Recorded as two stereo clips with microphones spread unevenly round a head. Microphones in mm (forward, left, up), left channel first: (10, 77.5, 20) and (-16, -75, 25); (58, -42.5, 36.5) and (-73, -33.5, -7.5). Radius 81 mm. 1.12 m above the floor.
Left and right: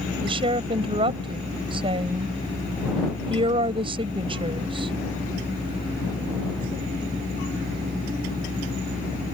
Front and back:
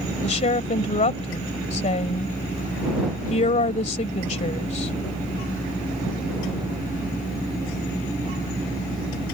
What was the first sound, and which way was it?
A woman speaking, 40° right.